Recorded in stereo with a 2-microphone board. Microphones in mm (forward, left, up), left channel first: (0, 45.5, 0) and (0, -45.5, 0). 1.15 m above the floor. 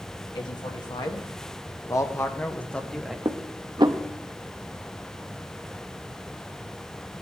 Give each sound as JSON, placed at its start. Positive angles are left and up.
{"t": 0.3, "sound": "a man speaking", "side_deg": 60, "distance_m": 2.0}
{"t": 3.2, "sound": "dishes clattering", "side_deg": -60, "distance_m": 0.8}